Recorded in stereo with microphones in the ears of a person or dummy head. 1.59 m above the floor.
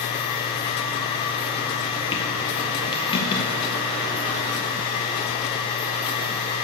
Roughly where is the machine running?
Left.